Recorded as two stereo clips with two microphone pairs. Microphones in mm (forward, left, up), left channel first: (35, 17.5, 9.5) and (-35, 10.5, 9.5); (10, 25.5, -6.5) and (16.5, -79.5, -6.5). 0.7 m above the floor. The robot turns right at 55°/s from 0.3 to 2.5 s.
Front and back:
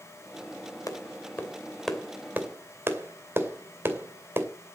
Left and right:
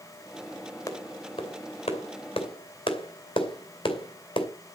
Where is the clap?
35° left, 2.5 m; by 4.5 s 125° left, 2.5 m.